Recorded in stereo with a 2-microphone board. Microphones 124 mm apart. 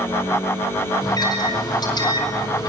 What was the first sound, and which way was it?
A microwave, 35° left (ahead or behind).